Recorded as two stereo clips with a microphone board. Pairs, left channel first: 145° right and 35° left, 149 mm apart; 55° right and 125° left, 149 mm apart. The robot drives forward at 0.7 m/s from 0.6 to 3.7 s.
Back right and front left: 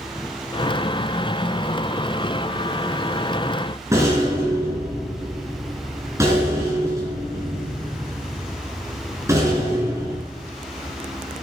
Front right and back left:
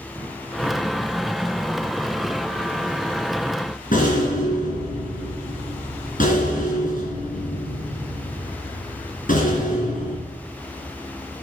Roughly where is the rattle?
Ahead right.